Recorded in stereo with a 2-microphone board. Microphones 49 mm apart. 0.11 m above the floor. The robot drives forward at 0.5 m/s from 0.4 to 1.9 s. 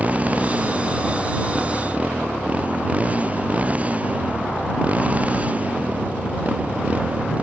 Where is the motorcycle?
30° right (ahead or behind).